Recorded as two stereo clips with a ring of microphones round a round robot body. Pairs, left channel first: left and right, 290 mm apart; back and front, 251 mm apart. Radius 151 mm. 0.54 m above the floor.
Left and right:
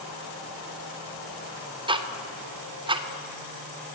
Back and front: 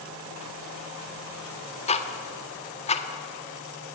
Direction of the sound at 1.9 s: 145° right.